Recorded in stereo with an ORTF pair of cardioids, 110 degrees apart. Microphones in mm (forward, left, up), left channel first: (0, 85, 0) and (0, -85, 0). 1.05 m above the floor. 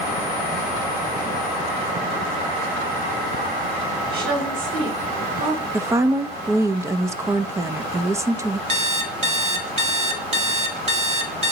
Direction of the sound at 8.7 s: 40° right.